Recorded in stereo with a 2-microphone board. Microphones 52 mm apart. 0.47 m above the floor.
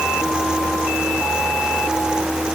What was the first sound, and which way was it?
Only background noise.